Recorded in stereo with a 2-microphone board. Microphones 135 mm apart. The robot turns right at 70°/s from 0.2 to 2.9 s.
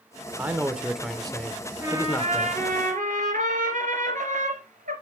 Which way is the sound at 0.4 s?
15° right (ahead or behind).